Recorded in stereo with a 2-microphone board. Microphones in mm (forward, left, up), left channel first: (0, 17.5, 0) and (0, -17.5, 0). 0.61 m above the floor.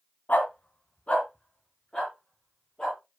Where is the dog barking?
55° left (ahead or behind), 1.7 m; by 3.0 s 25° left (ahead or behind), 5 m.